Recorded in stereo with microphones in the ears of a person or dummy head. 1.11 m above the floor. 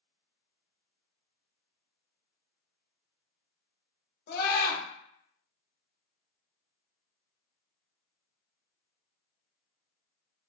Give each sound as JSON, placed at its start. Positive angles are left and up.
{"t": 4.3, "sound": "a scream", "side_deg": 60, "distance_m": 0.9}